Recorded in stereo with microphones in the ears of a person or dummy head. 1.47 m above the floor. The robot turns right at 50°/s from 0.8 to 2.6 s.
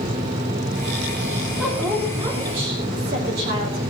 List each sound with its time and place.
1.6 s a woman speaking: straight behind, 3 m; by 3.8 s 130° right, 3 m